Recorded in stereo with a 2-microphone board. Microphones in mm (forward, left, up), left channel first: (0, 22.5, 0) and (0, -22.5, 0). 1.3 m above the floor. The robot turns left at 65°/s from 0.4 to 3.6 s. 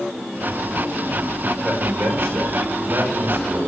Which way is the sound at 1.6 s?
20° right.